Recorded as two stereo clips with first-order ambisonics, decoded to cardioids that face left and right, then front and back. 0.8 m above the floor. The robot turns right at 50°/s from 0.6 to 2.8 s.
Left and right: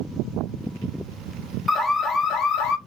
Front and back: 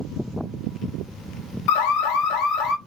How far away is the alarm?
About 0.6 m.